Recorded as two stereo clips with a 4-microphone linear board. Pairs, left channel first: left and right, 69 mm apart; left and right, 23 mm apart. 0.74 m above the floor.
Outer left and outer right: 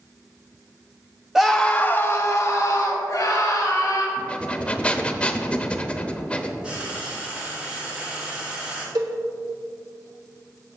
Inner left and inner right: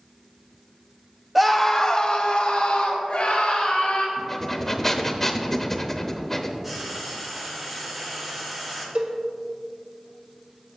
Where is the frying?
15° right (ahead or behind), 2.5 m.